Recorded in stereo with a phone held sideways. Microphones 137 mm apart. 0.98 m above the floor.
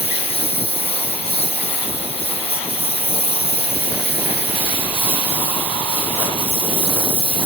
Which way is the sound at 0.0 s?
45° left (ahead or behind).